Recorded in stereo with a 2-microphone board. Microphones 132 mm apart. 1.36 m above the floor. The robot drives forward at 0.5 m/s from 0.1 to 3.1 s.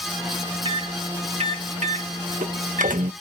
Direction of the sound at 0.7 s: 40° right (ahead or behind).